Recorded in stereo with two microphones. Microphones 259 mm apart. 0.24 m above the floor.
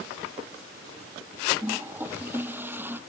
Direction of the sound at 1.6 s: 5° right (ahead or behind).